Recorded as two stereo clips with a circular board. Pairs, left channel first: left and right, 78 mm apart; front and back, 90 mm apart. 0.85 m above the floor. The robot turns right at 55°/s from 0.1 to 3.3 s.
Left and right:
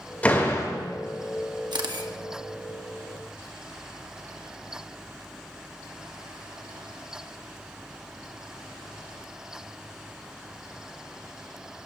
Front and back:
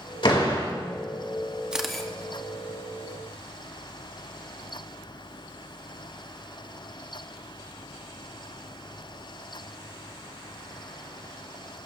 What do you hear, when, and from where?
0.2 s a door slam: 20° left, 2.5 m; by 0.7 s 45° left, 2.5 m
1.7 s a camera shutter: 100° right, 1.1 m; by 2.1 s 80° right, 1.1 m